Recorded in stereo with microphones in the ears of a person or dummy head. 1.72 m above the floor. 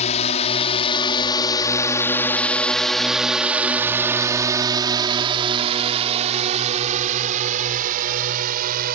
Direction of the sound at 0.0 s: 40° left (ahead or behind).